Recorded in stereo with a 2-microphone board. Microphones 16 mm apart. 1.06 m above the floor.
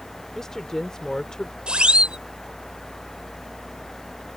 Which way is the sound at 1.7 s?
85° right.